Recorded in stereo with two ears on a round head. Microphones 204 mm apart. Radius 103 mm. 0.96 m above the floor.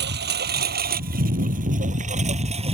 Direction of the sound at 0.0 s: 50° right (ahead or behind).